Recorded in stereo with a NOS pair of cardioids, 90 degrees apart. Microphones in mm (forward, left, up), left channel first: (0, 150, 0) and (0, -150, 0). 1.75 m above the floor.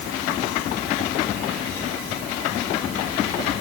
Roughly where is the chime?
No chime in this recording.